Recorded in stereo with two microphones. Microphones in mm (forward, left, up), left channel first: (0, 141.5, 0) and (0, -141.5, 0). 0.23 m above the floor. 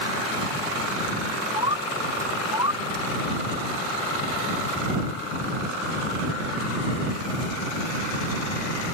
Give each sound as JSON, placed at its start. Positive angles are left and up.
{"t": 1.6, "sound": "a bird", "side_deg": -15}